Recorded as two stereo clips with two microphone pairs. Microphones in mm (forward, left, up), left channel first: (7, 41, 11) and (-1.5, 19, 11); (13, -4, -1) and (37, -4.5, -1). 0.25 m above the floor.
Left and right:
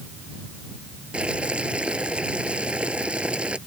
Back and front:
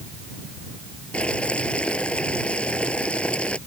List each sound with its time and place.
1.1 s boiling: 145° right